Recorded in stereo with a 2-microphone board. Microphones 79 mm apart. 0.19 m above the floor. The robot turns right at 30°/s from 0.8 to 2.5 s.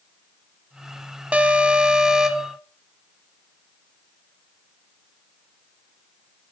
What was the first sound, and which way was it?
An alarm, 15° right (ahead or behind).